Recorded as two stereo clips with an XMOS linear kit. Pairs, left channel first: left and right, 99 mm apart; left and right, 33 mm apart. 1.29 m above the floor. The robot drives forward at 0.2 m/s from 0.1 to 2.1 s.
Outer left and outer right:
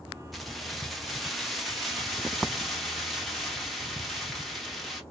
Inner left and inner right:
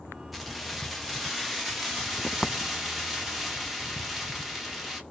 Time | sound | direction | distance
0.3 | keys jangling | centre (ahead or behind) | 0.8 m